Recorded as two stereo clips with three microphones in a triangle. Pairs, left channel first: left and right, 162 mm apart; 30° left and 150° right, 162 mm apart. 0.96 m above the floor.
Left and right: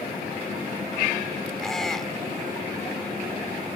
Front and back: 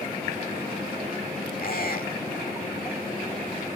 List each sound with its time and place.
1.6 s a squeak: straight ahead